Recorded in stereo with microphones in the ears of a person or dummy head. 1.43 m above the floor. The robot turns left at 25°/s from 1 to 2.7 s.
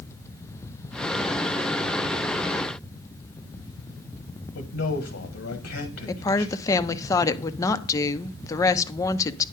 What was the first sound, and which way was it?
A man speaking, 65° left (ahead or behind).